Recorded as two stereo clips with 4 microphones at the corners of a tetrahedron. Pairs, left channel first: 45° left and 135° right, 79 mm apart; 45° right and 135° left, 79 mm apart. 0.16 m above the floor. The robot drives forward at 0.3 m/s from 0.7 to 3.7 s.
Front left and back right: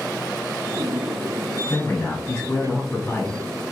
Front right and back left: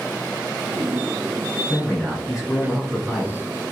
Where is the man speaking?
40° left, 1.1 m; by 3.4 s 90° left, 1.0 m.